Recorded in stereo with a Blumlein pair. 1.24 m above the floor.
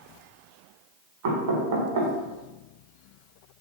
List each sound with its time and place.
1.2 s knocking: 55° right, 1.5 m